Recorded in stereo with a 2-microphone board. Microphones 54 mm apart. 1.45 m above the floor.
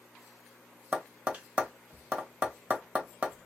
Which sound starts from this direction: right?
Tapping, at 0.9 s.